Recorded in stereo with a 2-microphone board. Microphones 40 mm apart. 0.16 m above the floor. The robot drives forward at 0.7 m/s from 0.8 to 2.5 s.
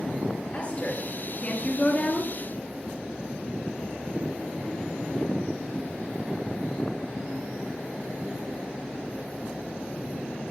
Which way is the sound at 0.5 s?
30° left (ahead or behind).